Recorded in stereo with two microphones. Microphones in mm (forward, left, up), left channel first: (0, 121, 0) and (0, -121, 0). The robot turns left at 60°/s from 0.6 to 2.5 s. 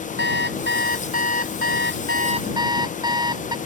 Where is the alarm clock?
50° right; by 3.6 s 160° right.